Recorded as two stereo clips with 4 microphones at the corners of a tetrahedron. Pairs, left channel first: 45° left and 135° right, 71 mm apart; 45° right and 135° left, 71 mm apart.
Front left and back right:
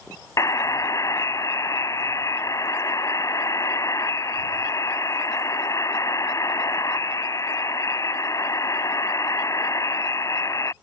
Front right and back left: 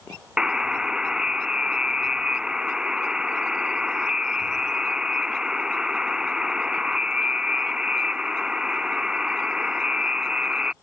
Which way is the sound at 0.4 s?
60° left.